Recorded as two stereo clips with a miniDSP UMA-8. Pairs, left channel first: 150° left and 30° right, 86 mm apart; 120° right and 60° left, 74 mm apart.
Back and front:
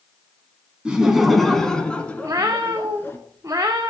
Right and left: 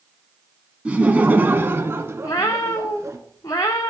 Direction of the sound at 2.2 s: 80° right.